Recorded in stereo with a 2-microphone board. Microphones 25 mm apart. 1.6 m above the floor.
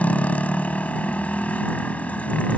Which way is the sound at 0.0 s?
70° left (ahead or behind).